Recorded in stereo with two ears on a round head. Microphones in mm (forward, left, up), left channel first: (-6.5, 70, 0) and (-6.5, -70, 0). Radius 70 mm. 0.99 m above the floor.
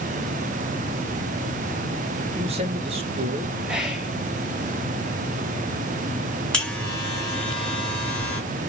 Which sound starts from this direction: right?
A man speaking, at 2.3 s.